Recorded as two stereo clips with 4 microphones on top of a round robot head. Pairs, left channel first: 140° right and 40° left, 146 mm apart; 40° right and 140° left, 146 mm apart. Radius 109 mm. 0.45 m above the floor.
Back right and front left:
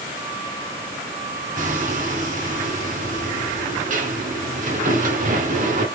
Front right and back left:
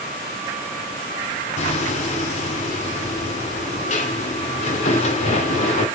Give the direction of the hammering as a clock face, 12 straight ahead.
12 o'clock.